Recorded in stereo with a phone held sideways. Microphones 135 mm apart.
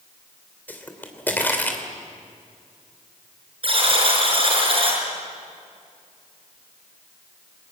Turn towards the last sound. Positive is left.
turn(degrees=-40)  # may be behind; listen again after turning